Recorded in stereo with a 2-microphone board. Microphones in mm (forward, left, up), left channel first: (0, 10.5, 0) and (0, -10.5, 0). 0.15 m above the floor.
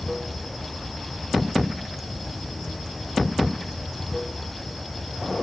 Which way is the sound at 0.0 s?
Centre (ahead or behind).